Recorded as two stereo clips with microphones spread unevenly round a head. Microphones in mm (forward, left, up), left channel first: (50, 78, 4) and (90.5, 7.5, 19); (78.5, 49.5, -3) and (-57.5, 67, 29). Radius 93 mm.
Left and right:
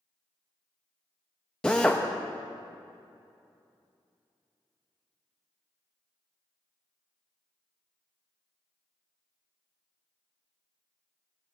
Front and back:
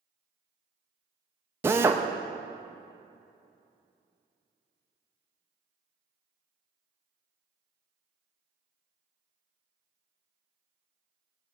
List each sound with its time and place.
1.6 s a drill: 150° right, 0.6 m